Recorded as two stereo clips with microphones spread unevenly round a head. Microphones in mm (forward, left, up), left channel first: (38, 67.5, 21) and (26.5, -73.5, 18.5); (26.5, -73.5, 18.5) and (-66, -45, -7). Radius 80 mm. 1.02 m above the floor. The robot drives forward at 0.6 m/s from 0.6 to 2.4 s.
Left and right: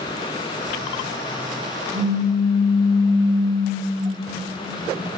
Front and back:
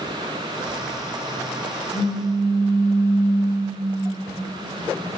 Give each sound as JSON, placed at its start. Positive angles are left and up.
{"t": 1.9, "sound": "a pop", "azimuth_deg": -110, "distance_m": 1.3}